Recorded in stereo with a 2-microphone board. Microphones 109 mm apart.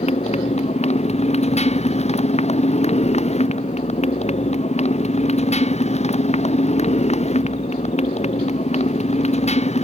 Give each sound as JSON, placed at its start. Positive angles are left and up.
{"t": 0.0, "sound": "a motorcycle", "side_deg": 80}